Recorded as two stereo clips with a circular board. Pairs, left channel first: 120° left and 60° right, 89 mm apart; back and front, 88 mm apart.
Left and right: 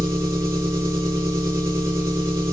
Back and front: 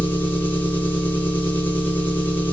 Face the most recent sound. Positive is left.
turn(degrees=-115)